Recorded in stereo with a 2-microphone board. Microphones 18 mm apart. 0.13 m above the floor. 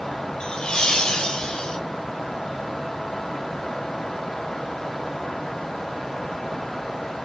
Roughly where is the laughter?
Left.